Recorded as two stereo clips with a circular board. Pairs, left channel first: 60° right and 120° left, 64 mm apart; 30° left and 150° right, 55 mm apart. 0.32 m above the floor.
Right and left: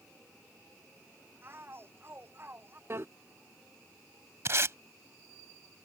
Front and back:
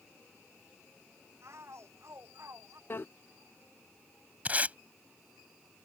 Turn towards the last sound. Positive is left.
turn(degrees=155)